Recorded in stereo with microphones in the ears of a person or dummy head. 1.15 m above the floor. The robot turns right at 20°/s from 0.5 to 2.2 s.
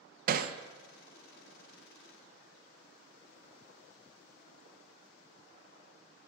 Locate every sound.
0.3 s hammering: 50° right (ahead or behind), 0.7 m